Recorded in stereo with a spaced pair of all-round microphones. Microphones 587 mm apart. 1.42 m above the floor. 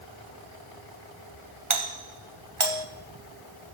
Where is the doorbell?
55° right (ahead or behind), 1.0 m.